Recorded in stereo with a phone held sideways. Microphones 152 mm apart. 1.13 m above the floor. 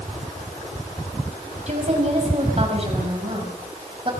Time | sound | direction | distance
1.7 | a woman speaking | 50° right (ahead or behind) | 5.5 m